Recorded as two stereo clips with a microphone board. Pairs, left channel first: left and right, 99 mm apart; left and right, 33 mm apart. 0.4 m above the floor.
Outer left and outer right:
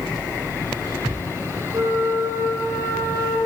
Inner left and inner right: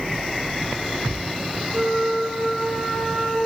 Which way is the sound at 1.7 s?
40° right (ahead or behind).